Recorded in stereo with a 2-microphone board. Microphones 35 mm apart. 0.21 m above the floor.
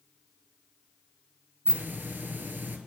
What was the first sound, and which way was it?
A hiss, 65° right (ahead or behind).